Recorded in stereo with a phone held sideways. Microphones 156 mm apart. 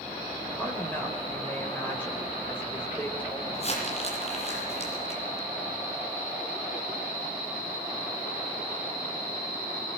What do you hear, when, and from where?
0.6 s a woman speaking: 15° left (ahead or behind), 5.5 m
3.5 s crumpling: 40° left (ahead or behind), 9.5 m